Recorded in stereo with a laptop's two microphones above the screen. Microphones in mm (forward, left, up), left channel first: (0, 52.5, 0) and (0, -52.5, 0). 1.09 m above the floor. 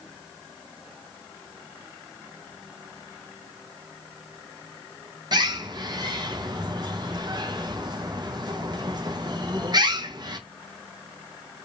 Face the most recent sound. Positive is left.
turn(degrees=-45)  # may be behind; listen again after turning